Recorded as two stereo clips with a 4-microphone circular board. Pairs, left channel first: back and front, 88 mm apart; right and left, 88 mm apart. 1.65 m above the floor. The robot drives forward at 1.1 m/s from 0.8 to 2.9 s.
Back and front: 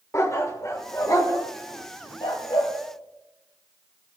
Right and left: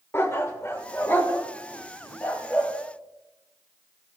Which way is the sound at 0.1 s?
140° right.